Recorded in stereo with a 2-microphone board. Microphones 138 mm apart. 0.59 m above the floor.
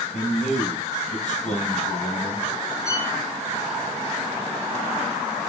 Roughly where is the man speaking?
Left.